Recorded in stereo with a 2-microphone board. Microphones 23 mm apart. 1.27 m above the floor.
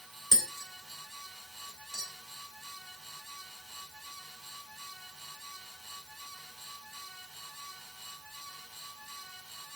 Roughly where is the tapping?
Right.